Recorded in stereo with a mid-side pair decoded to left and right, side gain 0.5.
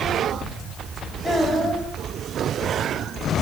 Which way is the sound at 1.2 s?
15° left.